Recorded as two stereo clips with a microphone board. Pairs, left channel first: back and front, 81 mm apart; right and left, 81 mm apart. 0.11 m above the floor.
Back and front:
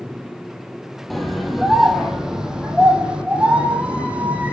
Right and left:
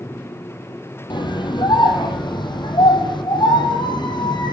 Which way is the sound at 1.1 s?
90° right.